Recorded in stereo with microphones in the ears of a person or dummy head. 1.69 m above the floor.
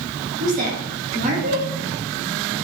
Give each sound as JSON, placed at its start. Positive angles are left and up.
{"t": 0.4, "sound": "a woman speaking", "side_deg": -50, "distance_m": 1.1}